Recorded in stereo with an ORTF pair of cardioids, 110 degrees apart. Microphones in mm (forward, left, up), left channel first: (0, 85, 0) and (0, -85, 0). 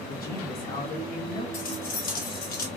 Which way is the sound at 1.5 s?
60° left.